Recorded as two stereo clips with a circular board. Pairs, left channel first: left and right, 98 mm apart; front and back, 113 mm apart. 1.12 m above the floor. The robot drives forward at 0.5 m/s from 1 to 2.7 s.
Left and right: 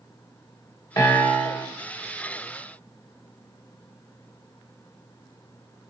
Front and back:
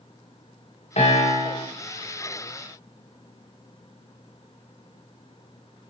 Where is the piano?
30° left, 3 m.